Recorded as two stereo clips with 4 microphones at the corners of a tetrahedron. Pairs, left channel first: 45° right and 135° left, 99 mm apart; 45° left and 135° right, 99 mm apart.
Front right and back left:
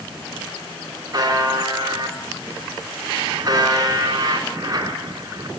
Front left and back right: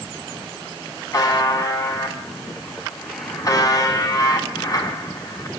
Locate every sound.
1.1 s a buzzer: 90° left, 2.5 m